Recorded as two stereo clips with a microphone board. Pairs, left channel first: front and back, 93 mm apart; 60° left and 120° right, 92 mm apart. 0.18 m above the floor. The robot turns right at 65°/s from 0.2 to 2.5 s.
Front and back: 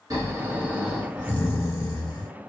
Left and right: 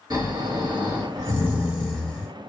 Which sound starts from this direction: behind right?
Snoring, at 0.1 s.